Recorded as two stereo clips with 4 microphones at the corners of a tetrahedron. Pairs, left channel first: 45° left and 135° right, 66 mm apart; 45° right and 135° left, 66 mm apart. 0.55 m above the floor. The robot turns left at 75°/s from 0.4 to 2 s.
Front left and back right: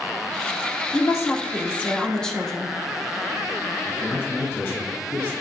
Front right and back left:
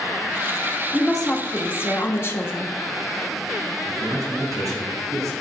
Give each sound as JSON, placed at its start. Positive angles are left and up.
{"t": 0.9, "sound": "a woman speaking", "azimuth_deg": 50, "distance_m": 1.1}
{"t": 3.9, "sound": "a man speaking", "azimuth_deg": 100, "distance_m": 3.5}